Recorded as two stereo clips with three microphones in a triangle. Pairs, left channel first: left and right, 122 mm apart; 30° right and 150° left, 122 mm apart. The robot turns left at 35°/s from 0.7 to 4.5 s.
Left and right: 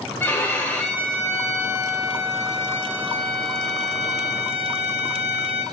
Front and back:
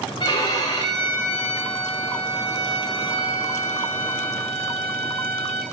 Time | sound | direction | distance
0.2 | a violin | 20° left | 6.5 m